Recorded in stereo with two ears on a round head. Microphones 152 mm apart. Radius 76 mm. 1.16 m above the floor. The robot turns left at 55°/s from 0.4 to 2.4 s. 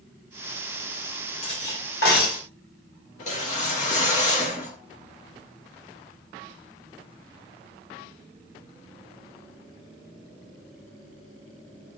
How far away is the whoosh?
About 1.7 m.